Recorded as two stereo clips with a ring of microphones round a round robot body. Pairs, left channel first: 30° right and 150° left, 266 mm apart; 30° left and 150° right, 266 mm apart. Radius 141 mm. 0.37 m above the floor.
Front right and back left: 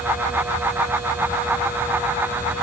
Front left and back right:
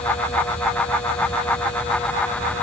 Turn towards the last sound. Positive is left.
No sound to turn to.